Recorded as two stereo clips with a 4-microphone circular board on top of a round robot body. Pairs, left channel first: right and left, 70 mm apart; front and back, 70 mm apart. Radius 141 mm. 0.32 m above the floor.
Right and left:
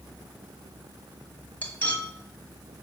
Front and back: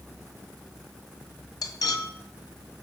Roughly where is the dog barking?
No dog barking in this recording.